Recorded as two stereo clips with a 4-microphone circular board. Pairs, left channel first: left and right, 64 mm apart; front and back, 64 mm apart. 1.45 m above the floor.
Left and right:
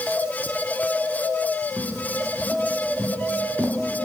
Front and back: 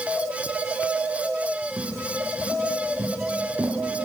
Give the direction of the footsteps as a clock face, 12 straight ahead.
5 o'clock.